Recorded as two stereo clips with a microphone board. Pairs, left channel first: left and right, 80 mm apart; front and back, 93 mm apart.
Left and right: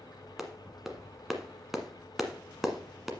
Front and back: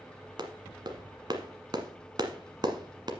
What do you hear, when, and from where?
0.4 s a clap: 175° right, 1.3 m